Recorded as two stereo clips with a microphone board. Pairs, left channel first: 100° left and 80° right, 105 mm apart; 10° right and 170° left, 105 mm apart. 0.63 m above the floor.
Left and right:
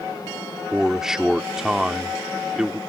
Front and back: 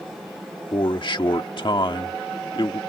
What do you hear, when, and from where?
0.7 s a man speaking: 5° left